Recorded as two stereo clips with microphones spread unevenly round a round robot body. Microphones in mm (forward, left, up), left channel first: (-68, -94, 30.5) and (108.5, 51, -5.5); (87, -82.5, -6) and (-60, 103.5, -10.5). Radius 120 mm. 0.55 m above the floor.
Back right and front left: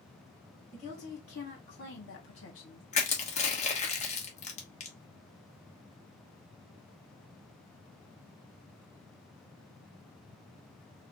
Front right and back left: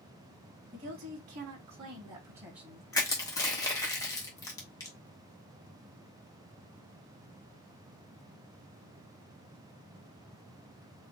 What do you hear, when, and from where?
0.7 s a woman speaking: 170° left, 2.0 m; by 2.8 s 145° right, 1.5 m
2.9 s crushing: 110° right, 1.2 m